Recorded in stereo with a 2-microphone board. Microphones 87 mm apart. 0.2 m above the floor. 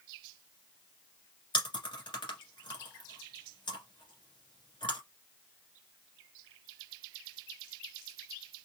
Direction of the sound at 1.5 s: 65° left (ahead or behind).